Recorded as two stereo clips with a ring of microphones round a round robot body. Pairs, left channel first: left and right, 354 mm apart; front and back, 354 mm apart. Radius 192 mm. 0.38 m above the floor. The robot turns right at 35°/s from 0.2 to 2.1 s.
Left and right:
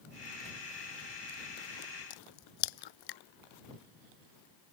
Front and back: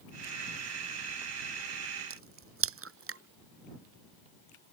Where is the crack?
125° left.